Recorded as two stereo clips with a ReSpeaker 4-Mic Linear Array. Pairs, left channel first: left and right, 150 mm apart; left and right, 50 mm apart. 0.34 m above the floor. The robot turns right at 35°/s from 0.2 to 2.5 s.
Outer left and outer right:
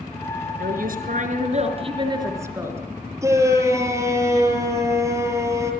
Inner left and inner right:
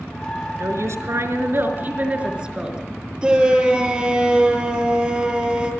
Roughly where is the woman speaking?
Right.